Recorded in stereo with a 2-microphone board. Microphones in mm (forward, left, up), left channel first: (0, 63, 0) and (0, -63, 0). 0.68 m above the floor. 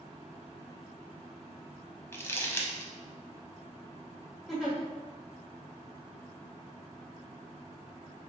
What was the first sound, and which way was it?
Crumpling, 20° left (ahead or behind).